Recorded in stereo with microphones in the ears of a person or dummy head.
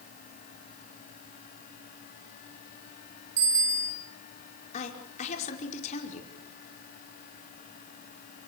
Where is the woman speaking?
45° left (ahead or behind), 5 m.